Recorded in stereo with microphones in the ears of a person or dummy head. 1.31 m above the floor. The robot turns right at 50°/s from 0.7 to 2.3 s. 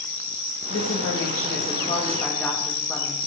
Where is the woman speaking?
85° left, 2.0 m; by 3.2 s 165° left, 2.0 m.